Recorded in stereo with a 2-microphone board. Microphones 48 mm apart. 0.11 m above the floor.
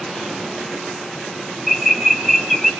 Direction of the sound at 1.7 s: Centre (ahead or behind).